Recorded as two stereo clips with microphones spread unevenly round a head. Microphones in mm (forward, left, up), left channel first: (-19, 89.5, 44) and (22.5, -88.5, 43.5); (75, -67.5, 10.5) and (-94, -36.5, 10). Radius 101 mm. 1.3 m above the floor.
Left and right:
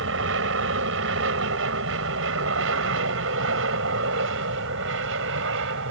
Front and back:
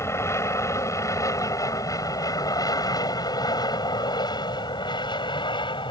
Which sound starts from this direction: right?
An aircraft, at 0.0 s.